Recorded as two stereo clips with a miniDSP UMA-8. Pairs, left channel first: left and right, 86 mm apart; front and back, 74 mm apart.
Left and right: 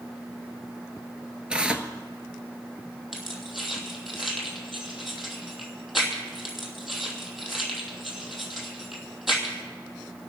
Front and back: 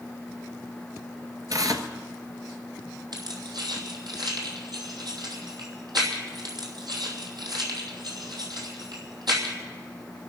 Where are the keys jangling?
Straight behind, 2.5 m.